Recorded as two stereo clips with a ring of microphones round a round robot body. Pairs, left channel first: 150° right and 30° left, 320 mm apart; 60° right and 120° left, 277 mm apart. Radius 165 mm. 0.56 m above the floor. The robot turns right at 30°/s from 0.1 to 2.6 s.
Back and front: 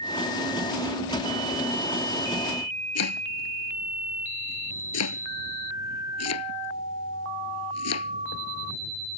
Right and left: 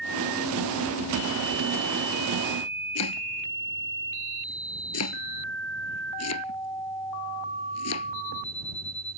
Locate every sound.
3.0 s chopping: 105° right